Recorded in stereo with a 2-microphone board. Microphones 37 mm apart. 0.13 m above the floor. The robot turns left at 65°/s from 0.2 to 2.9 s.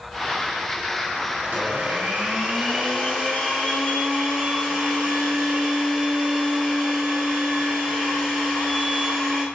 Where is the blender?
90° right, 1.7 m; by 9.5 s 175° left, 1.7 m.